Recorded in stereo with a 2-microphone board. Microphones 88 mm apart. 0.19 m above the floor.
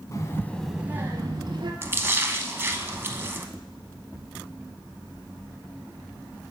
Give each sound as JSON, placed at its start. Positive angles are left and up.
{"t": 0.1, "sound": "a child speaking", "side_deg": 40, "distance_m": 0.8}
{"t": 1.8, "sound": "a splash", "side_deg": -25, "distance_m": 0.6}